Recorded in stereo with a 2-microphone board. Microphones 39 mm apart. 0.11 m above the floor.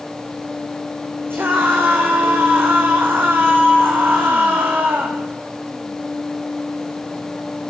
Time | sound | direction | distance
1.3 | a scream | 65° right (ahead or behind) | 8 m